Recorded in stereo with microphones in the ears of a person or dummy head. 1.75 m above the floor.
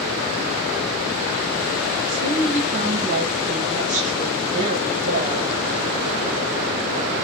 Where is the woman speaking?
35° right (ahead or behind), 1.7 m.